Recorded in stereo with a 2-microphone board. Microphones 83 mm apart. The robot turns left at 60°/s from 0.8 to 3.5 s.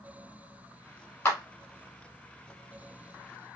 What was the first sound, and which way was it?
A clap, 30° left (ahead or behind).